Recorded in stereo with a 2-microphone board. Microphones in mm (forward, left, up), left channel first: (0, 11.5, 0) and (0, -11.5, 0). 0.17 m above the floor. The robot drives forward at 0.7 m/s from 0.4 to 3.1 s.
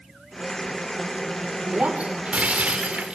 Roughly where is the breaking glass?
Right.